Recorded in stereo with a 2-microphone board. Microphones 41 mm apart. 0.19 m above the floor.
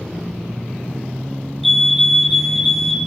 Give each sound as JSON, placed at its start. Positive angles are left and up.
{"t": 1.6, "sound": "a fire alarm", "side_deg": 0, "distance_m": 2.5}